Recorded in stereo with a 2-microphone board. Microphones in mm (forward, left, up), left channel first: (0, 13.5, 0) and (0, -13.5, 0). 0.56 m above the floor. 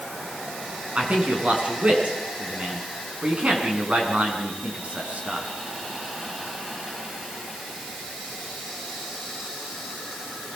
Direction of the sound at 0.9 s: 65° right (ahead or behind).